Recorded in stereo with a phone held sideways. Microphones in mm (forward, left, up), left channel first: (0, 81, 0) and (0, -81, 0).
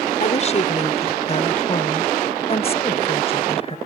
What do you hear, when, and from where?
0.2 s a woman speaking: 45° left (ahead or behind); by 3.8 s 40° left (ahead or behind)